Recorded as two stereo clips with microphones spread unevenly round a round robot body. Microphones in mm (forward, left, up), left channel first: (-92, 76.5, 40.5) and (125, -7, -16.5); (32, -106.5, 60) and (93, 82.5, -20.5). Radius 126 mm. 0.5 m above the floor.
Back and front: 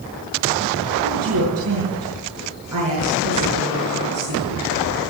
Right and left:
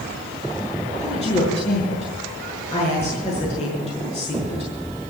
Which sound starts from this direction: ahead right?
A woman speaking, at 1.0 s.